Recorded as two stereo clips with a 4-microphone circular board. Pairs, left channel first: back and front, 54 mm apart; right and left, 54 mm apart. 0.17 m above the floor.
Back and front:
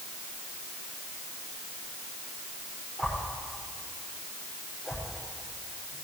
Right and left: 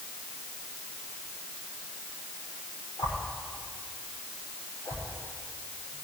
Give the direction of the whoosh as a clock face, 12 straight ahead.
3 o'clock.